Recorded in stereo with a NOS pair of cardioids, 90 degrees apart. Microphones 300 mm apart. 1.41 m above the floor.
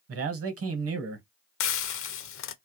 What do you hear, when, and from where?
0.1 s a man speaking: 50° right, 1.0 m
1.6 s frying: 45° left, 0.5 m